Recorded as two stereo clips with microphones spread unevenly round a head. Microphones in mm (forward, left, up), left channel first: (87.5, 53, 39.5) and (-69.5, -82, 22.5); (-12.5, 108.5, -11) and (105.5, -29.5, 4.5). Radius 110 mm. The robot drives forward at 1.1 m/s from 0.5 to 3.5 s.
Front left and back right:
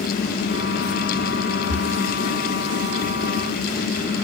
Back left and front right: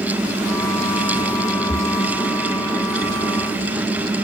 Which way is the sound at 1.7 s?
165° right.